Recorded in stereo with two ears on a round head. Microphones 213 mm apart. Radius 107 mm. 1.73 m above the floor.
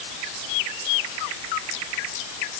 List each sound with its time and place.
Only background noise.